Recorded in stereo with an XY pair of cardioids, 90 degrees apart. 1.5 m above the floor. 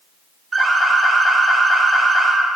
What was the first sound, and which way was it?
An alarm, 30° right.